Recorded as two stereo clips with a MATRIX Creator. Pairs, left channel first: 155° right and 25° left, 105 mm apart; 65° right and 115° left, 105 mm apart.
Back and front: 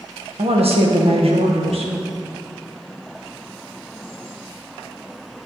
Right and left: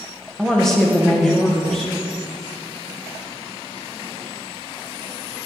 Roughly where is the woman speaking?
Ahead.